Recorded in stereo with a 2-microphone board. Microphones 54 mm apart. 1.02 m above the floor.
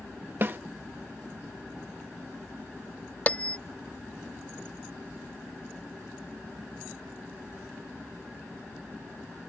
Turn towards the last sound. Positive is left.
turn(degrees=25)  # may be behind; listen again after turning